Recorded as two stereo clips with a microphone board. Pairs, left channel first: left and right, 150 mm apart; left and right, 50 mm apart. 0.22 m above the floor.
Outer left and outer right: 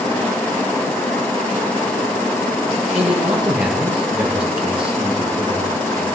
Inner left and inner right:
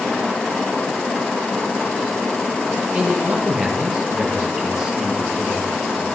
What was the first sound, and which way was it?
A man speaking, 10° right (ahead or behind).